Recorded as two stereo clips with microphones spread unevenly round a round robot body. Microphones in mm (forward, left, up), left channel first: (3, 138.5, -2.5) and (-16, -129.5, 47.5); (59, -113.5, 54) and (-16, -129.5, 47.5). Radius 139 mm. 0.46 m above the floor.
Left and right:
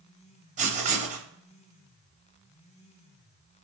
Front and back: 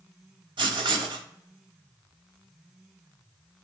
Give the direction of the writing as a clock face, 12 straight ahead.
5 o'clock.